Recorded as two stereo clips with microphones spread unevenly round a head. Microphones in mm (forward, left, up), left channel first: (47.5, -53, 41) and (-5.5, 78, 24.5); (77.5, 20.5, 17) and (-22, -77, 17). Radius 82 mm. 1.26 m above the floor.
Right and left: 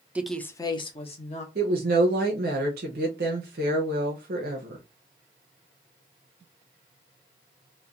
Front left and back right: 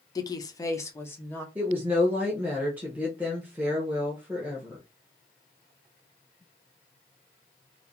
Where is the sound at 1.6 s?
145° left, 0.7 m.